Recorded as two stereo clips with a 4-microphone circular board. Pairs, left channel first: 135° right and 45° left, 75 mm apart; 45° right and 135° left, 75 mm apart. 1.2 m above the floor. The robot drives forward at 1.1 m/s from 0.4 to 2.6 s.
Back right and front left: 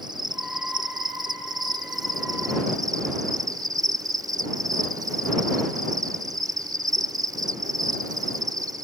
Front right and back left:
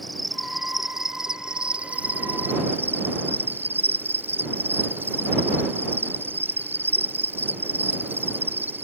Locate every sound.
0.0 s an insect: 45° left; by 8.8 s 75° left